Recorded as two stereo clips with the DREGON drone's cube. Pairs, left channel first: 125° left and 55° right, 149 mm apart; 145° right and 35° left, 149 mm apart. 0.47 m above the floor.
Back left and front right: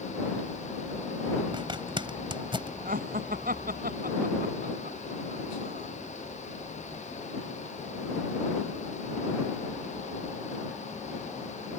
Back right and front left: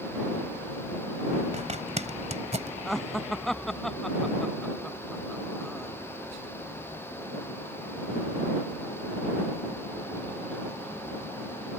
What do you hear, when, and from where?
1.5 s a zipper: straight ahead
2.9 s laughter: 55° right